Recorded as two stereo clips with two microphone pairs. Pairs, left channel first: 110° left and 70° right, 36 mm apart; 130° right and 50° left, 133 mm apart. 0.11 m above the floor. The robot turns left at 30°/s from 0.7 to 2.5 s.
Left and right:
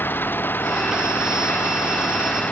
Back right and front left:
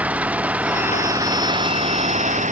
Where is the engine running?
125° left; by 2.5 s 75° left.